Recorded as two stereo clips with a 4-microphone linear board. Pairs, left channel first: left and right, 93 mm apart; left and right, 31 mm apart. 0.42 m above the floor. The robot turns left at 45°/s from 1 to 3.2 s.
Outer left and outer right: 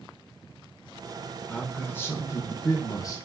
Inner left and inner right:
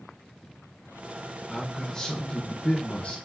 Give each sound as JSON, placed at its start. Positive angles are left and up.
{"t": 1.5, "sound": "a man speaking", "azimuth_deg": 160, "distance_m": 0.9}